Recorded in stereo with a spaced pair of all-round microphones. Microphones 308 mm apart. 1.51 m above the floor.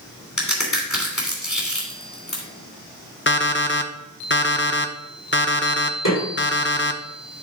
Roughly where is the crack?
Left.